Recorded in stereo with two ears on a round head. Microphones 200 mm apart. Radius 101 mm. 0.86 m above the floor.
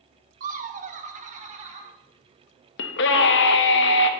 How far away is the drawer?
No drawer in this recording.